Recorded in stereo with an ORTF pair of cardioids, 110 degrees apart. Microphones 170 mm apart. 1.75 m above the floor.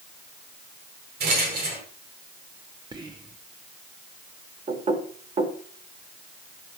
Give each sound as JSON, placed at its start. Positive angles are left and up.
{"t": 1.2, "sound": "a rattle", "azimuth_deg": -65, "distance_m": 7.0}
{"t": 2.9, "sound": "whispering", "azimuth_deg": -25, "distance_m": 1.3}
{"t": 4.7, "sound": "knocking", "azimuth_deg": -40, "distance_m": 4.5}